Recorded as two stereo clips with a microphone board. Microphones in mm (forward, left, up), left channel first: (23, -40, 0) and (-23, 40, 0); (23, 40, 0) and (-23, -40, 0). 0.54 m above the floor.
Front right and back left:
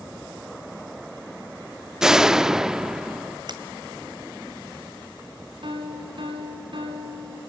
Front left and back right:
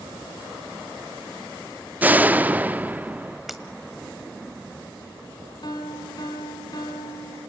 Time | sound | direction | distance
2.0 | a door slam | 165° right | 0.5 m
3.5 | breaking glass | 150° left | 1.9 m
5.6 | a piano | 95° left | 5 m